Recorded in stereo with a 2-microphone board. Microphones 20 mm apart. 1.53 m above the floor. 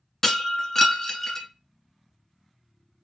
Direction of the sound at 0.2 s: 15° left (ahead or behind).